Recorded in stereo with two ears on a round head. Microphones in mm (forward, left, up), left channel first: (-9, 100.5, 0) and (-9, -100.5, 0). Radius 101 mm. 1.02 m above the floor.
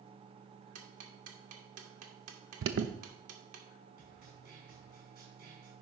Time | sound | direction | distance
0.8 | ticking | 75° right (ahead or behind) | 1.8 m
2.6 | an alarm | 60° right (ahead or behind) | 0.9 m
4.0 | a snare drum | 50° right (ahead or behind) | 4 m